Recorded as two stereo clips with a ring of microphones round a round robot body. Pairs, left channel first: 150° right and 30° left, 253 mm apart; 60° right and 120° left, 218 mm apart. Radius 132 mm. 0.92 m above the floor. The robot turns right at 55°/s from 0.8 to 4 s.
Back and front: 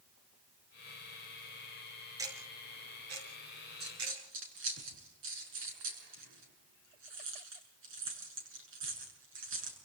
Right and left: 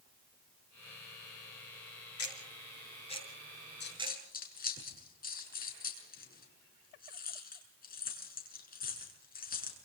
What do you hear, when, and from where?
2.2 s ticking: 50° right, 5.5 m; by 4.2 s 50° left, 5.5 m
3.8 s a dropped coin: 25° right, 6.5 m; by 9.8 s 10° right, 6.5 m